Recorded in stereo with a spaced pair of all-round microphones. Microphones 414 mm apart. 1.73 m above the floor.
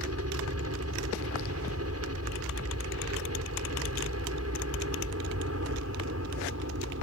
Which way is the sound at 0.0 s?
35° right (ahead or behind).